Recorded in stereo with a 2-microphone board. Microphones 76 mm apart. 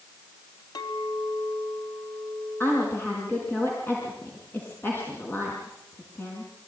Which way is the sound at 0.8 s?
65° left (ahead or behind).